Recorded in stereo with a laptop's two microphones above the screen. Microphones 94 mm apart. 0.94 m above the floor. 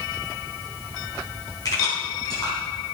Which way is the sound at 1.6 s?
40° left (ahead or behind).